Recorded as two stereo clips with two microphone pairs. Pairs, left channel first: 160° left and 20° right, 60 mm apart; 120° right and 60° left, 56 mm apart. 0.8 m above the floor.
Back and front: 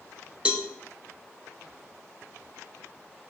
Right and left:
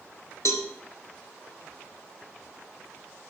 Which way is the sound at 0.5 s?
95° right.